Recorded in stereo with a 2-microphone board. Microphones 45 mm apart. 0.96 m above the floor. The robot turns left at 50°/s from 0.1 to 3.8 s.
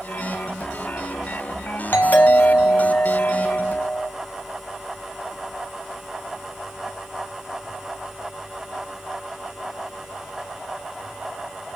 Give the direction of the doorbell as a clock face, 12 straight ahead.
9 o'clock.